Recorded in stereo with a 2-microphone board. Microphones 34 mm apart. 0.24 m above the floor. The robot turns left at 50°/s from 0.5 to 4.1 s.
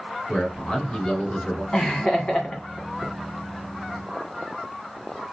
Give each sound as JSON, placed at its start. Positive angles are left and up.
{"t": 0.3, "sound": "a man speaking", "azimuth_deg": 175, "distance_m": 2.0}
{"t": 1.7, "sound": "laughter", "azimuth_deg": 150, "distance_m": 1.7}